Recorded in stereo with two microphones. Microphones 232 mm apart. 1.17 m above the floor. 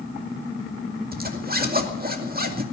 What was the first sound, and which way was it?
A zipper, 40° right (ahead or behind).